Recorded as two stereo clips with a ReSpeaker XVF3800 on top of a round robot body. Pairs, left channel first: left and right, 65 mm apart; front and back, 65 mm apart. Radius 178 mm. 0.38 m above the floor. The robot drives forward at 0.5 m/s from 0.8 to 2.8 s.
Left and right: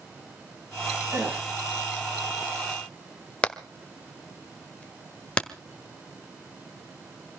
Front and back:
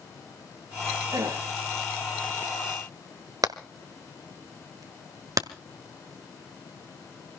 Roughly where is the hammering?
Behind.